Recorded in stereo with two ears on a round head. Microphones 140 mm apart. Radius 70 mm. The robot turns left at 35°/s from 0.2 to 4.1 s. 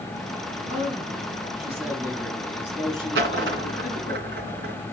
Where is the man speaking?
125° right, 5 m; by 4.2 s 115° left, 5 m.